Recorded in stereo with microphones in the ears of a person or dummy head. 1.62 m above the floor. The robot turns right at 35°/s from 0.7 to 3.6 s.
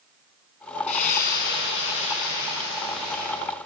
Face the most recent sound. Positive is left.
turn(degrees=145)